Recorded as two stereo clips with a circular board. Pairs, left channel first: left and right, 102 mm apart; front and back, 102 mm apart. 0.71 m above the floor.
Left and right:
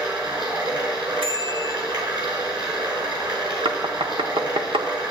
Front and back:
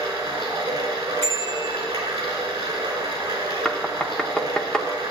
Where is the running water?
135° right, 5 m.